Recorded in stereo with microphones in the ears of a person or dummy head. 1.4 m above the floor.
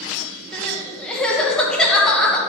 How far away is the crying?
About 1.7 m.